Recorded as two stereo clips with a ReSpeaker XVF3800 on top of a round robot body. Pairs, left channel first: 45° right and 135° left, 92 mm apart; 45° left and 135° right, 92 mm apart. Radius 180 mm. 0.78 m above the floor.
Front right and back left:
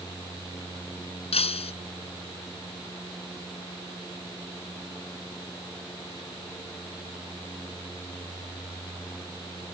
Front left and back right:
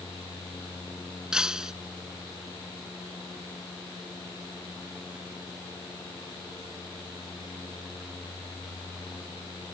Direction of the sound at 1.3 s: 50° right.